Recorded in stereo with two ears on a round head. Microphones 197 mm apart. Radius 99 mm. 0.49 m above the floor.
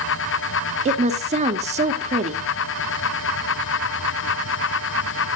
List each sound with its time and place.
0.8 s a woman speaking: 30° right (ahead or behind), 1.1 m